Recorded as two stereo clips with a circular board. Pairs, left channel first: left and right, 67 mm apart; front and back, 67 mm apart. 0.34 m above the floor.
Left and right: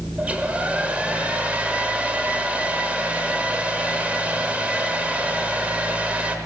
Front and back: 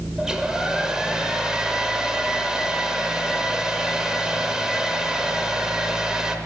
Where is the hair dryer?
120° right, 0.8 m.